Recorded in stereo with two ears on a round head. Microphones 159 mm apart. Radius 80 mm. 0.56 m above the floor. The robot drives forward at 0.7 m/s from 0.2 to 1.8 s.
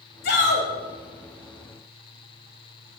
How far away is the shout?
About 3.5 m.